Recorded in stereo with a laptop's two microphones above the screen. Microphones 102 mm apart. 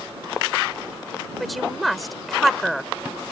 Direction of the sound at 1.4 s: Centre (ahead or behind).